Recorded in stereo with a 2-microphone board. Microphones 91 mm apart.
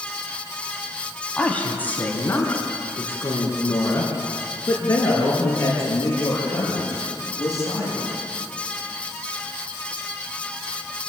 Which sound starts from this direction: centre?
A woman speaking, at 1.4 s.